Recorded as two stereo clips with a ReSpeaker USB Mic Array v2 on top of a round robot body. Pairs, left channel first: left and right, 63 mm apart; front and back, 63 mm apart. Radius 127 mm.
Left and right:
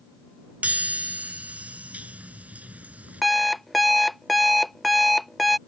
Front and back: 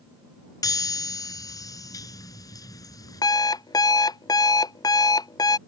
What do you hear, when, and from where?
0.6 s a chime: 20° right
3.2 s an alarm clock: straight ahead